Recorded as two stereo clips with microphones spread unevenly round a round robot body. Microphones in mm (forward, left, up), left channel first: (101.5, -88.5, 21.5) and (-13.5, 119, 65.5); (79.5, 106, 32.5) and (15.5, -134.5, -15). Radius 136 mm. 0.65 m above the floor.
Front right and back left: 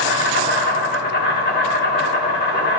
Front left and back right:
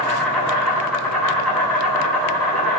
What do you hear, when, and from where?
0.0 s an insect: 15° right, 5.5 m